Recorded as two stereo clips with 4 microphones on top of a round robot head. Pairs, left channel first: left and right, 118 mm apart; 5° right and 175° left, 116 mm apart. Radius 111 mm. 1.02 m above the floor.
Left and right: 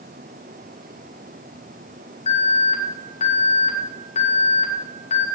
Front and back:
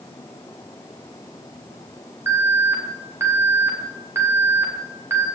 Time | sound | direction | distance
2.3 | an alarm | 110° left | 4 m